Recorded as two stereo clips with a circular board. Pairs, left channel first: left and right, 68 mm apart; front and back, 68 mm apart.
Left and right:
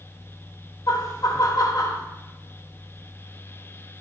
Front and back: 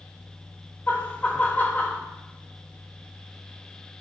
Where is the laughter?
65° left, 1.3 m.